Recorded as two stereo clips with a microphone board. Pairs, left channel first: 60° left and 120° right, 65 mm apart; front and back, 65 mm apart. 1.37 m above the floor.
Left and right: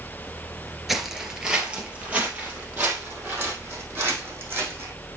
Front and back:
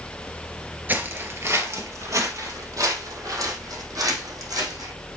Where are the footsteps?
155° left, 1.5 m; by 4.9 s 175° right, 4.5 m.